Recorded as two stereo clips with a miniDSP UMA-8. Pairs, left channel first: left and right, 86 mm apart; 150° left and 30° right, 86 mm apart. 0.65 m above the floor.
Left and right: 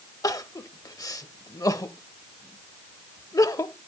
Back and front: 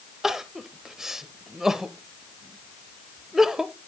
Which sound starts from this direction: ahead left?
Crying, at 0.2 s.